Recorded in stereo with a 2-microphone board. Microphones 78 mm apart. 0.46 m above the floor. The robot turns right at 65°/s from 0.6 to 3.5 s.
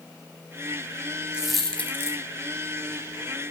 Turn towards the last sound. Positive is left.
turn(degrees=130)